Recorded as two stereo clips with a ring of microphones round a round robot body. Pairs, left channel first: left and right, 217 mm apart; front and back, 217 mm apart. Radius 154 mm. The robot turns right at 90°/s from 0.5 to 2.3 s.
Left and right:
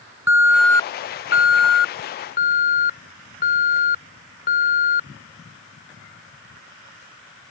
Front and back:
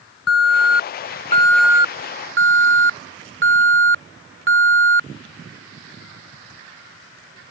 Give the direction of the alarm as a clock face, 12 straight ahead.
12 o'clock.